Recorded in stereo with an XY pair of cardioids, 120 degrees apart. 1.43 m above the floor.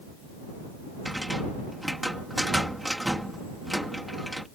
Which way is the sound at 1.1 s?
5° right.